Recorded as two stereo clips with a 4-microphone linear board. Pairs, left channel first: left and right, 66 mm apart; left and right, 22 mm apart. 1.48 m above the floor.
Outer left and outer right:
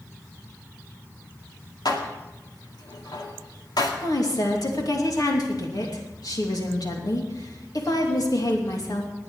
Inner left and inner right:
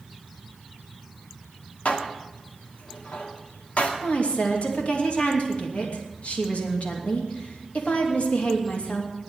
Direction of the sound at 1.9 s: 75° left (ahead or behind).